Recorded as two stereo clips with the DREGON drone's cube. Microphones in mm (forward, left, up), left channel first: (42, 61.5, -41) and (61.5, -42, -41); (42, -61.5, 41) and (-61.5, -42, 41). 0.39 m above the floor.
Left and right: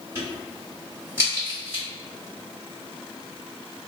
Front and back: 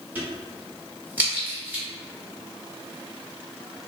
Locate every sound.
0.1 s a crack: 130° right, 1.2 m